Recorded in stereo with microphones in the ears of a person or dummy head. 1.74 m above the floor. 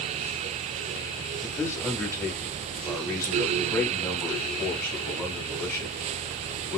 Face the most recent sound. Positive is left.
turn(degrees=15)  # may be behind; listen again after turning